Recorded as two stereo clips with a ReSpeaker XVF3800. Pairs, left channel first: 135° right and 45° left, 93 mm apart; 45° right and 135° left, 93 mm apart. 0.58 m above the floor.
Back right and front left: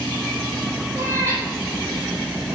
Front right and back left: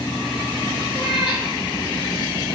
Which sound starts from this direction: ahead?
A cat meowing, at 0.9 s.